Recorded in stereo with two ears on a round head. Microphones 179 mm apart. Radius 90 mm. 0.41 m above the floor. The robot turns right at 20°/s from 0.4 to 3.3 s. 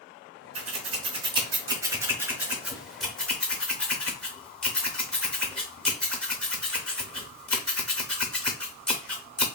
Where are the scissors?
35° right (ahead or behind), 0.6 m; by 9.4 s 5° left (ahead or behind), 0.6 m.